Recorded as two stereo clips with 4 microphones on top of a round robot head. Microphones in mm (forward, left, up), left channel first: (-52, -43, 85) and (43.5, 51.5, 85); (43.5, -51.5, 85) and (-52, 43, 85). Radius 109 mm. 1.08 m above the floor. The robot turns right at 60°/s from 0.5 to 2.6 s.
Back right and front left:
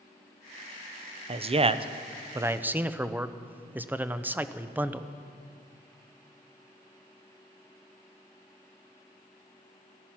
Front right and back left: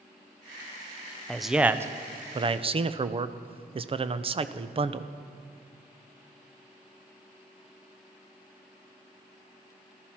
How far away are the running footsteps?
I don't hear running footsteps.